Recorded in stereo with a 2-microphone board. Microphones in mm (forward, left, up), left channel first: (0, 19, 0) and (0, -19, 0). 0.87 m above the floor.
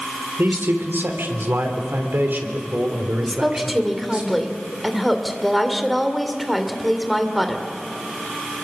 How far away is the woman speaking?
About 2.5 m.